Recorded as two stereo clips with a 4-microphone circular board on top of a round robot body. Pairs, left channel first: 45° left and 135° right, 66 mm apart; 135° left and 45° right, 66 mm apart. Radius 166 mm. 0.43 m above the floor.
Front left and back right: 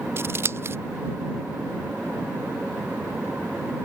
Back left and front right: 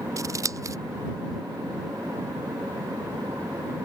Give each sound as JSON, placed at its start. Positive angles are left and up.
{"t": 0.2, "sound": "scissors", "azimuth_deg": -80}